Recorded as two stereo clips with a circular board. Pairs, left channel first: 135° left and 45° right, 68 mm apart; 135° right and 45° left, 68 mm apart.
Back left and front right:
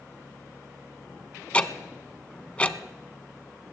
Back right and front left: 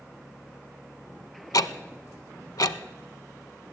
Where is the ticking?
155° right, 0.6 m.